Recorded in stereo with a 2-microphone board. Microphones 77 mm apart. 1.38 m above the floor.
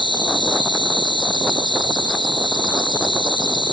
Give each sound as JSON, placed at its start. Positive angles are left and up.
{"t": 0.0, "sound": "an insect", "side_deg": 75}